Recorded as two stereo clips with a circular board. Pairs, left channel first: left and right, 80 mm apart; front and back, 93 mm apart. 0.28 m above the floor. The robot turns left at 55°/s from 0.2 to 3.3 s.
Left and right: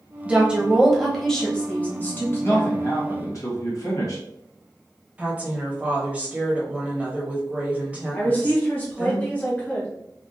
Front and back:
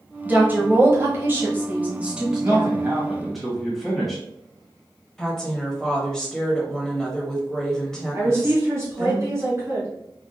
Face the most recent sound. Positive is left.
turn(degrees=145)